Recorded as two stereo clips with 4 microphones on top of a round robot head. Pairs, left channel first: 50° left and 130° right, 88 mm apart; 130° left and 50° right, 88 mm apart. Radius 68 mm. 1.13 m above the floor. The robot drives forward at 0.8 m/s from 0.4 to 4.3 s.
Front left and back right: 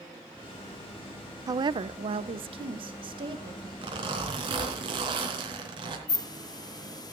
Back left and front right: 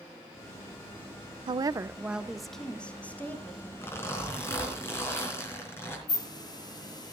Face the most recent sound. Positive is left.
turn(degrees=90)